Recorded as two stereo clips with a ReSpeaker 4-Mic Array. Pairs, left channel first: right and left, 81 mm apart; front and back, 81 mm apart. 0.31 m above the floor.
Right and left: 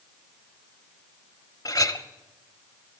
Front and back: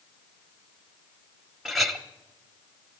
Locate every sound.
1.6 s a clink: 90° right, 1.0 m